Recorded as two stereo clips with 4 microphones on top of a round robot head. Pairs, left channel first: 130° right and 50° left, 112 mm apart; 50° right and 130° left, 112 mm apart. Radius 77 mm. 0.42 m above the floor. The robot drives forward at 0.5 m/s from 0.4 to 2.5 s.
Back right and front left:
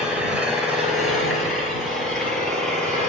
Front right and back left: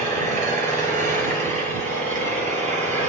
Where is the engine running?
135° left, 3 m; by 3.1 s 145° left, 4 m.